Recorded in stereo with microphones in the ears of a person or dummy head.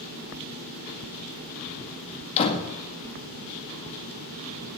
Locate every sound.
2.4 s a door slam: 30° left (ahead or behind), 1.8 m